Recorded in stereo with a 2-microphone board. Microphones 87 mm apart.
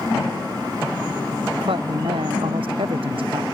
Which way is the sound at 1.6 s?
70° right (ahead or behind).